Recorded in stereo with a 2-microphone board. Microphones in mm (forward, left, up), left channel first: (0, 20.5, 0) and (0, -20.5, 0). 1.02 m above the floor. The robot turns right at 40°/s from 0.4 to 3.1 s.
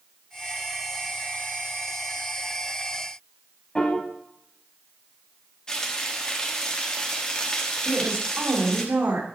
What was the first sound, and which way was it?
A piano, 25° left (ahead or behind).